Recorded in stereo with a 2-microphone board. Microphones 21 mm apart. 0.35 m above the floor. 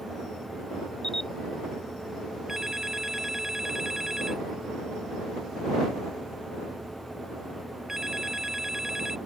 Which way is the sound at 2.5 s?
30° right (ahead or behind).